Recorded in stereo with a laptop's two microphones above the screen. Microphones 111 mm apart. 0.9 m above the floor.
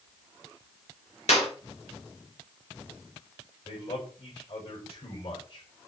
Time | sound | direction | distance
1.3 | a clap | 75° left (ahead or behind) | 3.5 m
3.6 | a man speaking | 65° left (ahead or behind) | 7 m